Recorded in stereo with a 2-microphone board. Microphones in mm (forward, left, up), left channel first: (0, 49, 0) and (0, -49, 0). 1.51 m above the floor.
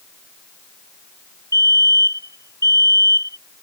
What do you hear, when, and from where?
1.5 s a fire alarm: 35° left (ahead or behind)